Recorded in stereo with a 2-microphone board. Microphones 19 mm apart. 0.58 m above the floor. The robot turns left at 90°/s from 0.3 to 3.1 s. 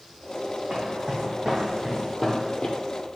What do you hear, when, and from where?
0.7 s footsteps: 65° right (ahead or behind), 1.9 m; by 2.8 s 45° left (ahead or behind), 0.7 m